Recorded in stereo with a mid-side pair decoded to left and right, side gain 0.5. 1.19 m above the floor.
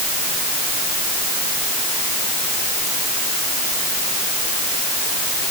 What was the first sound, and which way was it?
Only background noise.